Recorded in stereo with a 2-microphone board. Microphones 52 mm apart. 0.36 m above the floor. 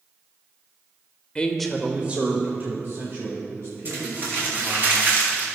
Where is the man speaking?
25° left (ahead or behind), 0.9 m; by 4.8 s 60° right (ahead or behind), 4 m.